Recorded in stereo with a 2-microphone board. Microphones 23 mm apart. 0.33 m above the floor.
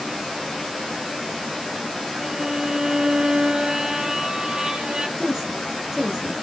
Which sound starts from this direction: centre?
A woman speaking, at 5.2 s.